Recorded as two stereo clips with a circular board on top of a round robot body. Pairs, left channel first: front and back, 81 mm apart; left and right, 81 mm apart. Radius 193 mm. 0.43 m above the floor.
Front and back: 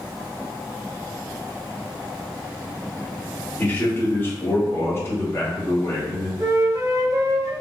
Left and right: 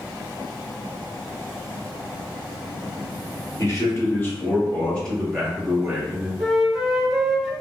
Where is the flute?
Straight behind, 1.2 m.